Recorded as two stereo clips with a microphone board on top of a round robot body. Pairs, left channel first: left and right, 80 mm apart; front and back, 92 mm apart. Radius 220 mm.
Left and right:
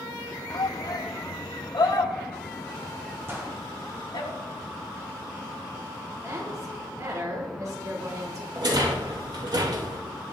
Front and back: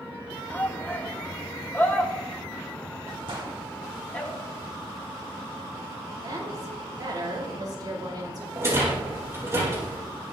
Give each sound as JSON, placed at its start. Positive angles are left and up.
{"t": 0.5, "sound": "a shout", "azimuth_deg": 65, "distance_m": 1.3}
{"t": 3.3, "sound": "a gunshot", "azimuth_deg": -150, "distance_m": 3.0}
{"t": 6.2, "sound": "a woman speaking", "azimuth_deg": -135, "distance_m": 5.0}
{"t": 8.6, "sound": "a rattle", "azimuth_deg": -120, "distance_m": 5.5}